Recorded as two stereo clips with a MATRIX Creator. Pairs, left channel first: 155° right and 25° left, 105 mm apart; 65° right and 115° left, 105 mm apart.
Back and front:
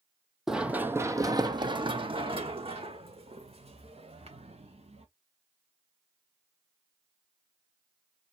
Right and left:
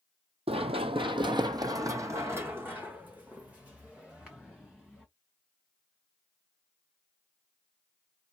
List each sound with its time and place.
0.5 s running footsteps: 110° left, 0.7 m; by 5.0 s 25° left, 2.5 m